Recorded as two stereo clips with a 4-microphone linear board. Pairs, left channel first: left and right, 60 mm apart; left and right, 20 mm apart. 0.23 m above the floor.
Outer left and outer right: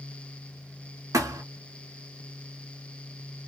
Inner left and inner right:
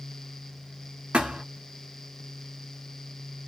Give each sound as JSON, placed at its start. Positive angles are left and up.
{"t": 1.1, "sound": "a thud", "side_deg": -65, "distance_m": 1.0}